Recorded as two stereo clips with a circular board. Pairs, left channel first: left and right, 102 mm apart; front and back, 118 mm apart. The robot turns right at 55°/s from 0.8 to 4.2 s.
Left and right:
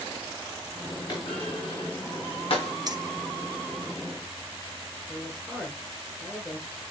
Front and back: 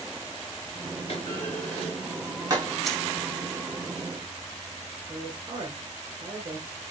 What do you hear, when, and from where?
1.1 s a clunk: 45° left, 3.5 m; by 2.7 s 135° left, 3.5 m
2.9 s keys jangling: 85° right, 1.1 m; by 3.0 s 80° right, 1.1 m
5.1 s a man speaking: straight behind, 1.7 m